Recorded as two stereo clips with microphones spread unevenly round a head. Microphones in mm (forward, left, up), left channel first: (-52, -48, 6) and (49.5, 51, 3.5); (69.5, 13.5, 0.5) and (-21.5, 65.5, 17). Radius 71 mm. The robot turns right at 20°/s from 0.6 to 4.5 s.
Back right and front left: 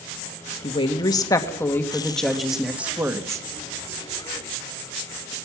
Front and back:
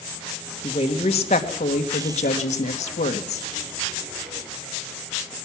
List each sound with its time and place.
0.6 s a woman speaking: 80° right, 1.6 m; by 3.5 s 25° right, 1.6 m